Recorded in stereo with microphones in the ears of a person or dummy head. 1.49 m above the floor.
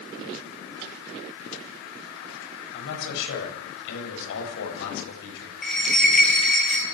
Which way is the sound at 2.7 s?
70° left (ahead or behind).